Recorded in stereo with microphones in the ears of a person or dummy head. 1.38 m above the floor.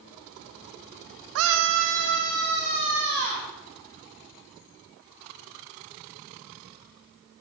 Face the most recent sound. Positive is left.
turn(degrees=-55)  # may be behind; listen again after turning